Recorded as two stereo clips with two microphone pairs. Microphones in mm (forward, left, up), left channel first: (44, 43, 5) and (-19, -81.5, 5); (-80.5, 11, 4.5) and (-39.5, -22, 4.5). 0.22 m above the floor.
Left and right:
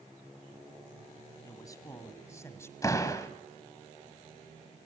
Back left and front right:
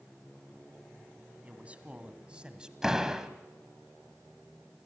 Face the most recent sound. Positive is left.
turn(degrees=30)